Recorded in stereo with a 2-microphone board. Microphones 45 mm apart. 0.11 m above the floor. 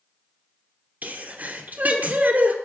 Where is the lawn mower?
No lawn mower in this recording.